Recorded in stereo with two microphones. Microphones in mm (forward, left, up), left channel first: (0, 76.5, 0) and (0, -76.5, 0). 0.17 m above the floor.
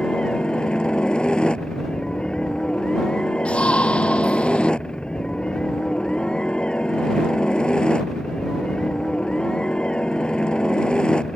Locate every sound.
0.0 s a helicopter: 5° left (ahead or behind)
3.5 s a shout: 5° left (ahead or behind)